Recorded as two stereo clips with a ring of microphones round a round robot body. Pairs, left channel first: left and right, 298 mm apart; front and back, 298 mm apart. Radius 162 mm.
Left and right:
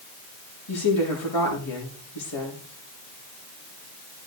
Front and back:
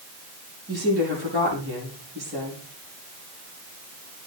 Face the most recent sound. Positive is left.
turn(degrees=120)